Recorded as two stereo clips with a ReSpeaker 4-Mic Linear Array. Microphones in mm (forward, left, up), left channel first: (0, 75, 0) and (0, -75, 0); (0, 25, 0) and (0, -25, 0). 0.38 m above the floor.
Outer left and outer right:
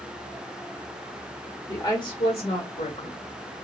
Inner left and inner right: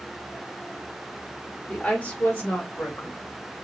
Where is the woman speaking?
25° left (ahead or behind), 0.9 m; by 3.6 s 65° left (ahead or behind), 1.8 m.